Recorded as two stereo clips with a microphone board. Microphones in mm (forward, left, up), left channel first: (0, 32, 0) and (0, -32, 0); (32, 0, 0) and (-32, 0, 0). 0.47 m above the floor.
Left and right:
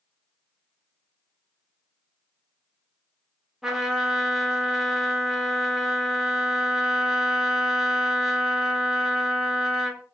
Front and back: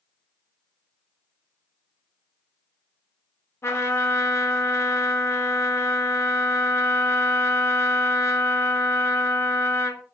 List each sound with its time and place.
3.6 s a trumpet: 10° right, 0.7 m